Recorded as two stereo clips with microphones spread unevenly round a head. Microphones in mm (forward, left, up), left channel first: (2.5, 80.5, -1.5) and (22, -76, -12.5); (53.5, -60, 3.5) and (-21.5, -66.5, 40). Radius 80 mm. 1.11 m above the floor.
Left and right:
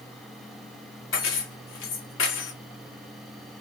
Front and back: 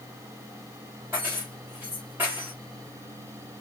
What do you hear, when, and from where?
1.1 s keys jangling: 110° left, 1.1 m